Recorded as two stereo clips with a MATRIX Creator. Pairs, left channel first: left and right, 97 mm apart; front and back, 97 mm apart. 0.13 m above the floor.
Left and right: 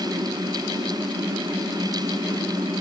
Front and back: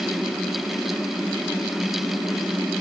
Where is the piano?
No piano in this recording.